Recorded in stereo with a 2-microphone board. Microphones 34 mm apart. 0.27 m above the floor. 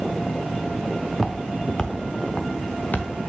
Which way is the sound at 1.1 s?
Centre (ahead or behind).